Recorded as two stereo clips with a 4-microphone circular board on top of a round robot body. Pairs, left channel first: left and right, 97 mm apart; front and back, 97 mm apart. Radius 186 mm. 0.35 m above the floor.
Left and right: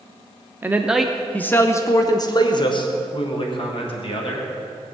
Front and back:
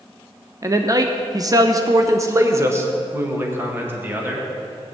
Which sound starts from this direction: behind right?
A man speaking, at 0.6 s.